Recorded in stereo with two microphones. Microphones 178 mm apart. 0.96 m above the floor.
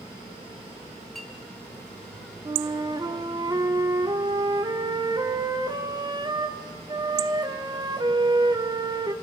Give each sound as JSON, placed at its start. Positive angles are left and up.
{"t": 1.1, "sound": "a clink", "side_deg": 0, "distance_m": 3.0}
{"t": 2.5, "sound": "a flute", "side_deg": -25, "distance_m": 1.2}